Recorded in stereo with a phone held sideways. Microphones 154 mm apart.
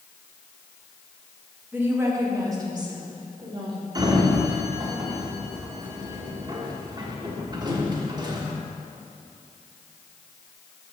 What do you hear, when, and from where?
1.7 s a woman speaking: 10° right (ahead or behind), 1.2 m; by 3.9 s 35° right (ahead or behind), 2 m
4.0 s a sliding door: 30° right (ahead or behind), 1.1 m